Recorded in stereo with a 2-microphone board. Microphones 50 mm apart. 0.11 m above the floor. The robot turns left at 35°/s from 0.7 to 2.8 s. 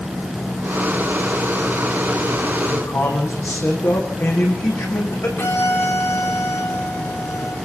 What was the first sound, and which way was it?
A man speaking, 75° left (ahead or behind).